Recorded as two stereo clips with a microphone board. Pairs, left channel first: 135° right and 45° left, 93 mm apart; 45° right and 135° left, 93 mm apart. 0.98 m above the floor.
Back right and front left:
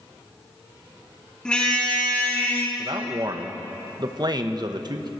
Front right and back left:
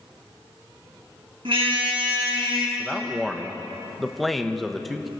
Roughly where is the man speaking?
Ahead left.